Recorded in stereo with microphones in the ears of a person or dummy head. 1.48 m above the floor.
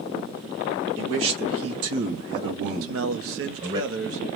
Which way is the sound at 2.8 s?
70° right (ahead or behind).